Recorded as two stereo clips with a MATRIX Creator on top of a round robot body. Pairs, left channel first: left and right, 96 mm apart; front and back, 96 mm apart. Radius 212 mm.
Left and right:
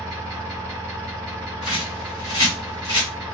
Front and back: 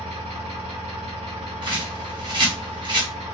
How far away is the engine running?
About 0.7 m.